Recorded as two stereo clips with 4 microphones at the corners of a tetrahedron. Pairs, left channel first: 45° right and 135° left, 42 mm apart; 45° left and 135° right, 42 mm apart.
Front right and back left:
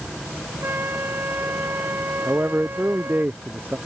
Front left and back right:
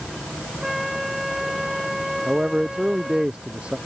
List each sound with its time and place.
0.6 s a flute: 140° left
2.3 s a man speaking: 160° left